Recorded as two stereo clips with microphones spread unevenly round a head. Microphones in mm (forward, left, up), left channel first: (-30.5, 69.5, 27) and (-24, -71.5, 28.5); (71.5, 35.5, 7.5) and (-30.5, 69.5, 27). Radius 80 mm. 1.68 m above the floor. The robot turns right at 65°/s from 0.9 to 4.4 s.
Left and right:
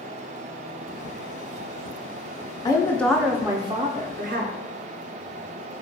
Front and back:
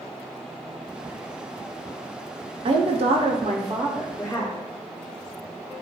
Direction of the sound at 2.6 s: 150° left.